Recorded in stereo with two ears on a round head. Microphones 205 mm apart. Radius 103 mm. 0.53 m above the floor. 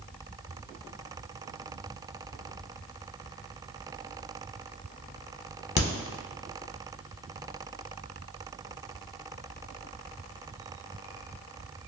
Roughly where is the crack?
Left.